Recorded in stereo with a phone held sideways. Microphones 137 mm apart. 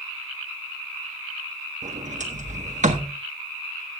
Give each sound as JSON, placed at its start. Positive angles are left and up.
{"t": 1.8, "sound": "a sliding door", "side_deg": -65, "distance_m": 1.2}